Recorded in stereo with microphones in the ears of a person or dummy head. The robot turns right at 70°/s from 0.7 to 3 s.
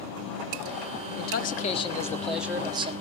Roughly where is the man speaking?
Left.